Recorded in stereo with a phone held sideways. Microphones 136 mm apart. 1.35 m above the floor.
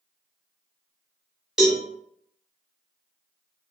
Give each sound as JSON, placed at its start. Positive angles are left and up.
{"t": 1.6, "sound": "a cowbell", "side_deg": -5, "distance_m": 1.0}